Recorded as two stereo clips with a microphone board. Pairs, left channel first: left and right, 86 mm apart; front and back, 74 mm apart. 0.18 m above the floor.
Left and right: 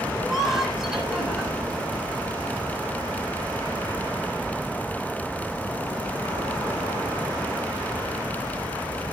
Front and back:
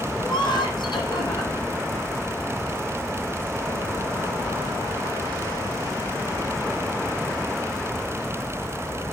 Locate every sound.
0.2 s laughter: 5° right, 8 m